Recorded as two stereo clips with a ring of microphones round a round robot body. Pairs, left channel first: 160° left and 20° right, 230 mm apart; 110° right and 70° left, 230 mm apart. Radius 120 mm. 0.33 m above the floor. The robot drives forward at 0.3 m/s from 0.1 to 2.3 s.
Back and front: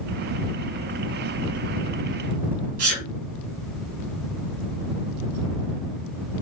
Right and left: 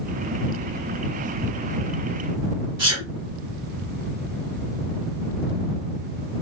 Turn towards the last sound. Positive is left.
turn(degrees=-5)